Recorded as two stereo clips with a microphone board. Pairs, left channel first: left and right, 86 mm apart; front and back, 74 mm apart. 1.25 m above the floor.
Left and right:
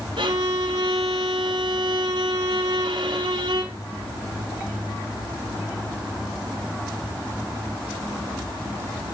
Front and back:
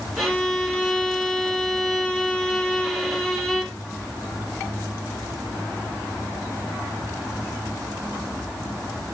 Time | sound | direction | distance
0.2 | a violin | 85° right | 4 m